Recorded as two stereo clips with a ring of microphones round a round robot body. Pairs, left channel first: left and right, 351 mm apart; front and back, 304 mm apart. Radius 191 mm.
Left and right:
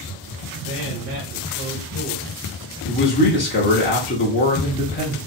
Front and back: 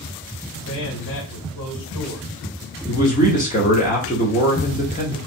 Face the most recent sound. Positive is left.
turn(degrees=50)